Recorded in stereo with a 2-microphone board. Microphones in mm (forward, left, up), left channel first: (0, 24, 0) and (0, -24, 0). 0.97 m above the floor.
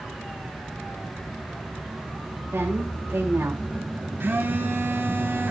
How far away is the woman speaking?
About 2.5 m.